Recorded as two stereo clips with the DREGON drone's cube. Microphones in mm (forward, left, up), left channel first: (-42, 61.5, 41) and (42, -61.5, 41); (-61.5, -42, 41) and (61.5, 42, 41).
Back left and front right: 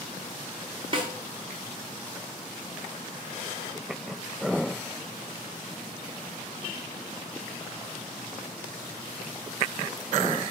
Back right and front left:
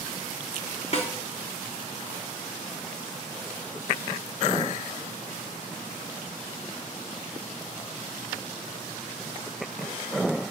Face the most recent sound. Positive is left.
turn(degrees=-105)